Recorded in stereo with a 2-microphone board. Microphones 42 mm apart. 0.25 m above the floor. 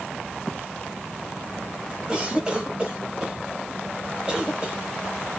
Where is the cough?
20° right (ahead or behind), 1.2 m.